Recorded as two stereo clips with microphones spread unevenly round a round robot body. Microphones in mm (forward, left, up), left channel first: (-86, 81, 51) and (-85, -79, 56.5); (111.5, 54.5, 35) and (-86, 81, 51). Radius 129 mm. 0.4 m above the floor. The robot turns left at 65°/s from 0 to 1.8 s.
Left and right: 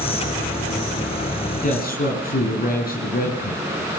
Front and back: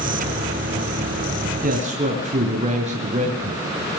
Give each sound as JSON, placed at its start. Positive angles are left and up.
{"t": 1.6, "sound": "a man speaking", "azimuth_deg": 130, "distance_m": 4.5}